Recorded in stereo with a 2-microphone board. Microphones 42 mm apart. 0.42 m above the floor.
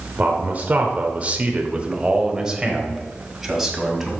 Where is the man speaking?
35° right (ahead or behind), 1.0 m; by 4.1 s 5° right (ahead or behind), 2.5 m.